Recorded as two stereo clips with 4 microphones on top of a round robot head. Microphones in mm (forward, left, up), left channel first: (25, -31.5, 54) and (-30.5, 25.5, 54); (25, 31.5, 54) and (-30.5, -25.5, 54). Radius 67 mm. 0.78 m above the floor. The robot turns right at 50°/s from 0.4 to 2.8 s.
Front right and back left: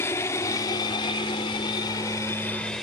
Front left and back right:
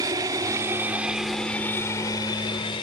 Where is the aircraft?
100° right; by 2.8 s 40° left.